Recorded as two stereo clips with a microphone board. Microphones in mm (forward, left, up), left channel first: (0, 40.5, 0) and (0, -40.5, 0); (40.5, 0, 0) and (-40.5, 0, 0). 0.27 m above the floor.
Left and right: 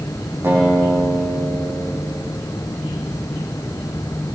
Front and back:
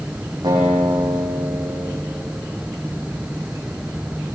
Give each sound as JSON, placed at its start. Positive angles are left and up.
{"t": 0.4, "sound": "a guitar", "azimuth_deg": -155, "distance_m": 8.5}